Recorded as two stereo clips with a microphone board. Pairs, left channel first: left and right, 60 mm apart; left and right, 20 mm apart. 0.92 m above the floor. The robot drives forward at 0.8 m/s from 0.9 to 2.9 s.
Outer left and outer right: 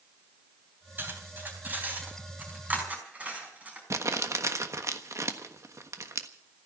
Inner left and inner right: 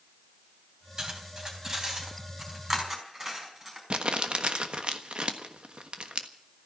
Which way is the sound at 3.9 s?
60° right (ahead or behind).